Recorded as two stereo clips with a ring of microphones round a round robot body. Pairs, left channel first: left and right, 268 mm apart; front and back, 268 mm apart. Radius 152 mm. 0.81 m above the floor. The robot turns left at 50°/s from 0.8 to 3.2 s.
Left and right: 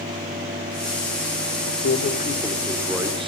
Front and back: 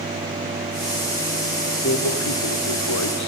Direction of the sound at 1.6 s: 60° left.